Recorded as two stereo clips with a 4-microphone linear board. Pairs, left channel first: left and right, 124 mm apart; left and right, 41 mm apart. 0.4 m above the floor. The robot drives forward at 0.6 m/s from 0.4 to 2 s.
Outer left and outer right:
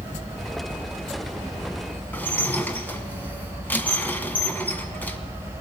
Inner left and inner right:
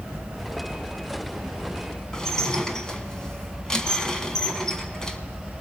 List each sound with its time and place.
2.1 s dishes clattering: 15° left (ahead or behind), 2 m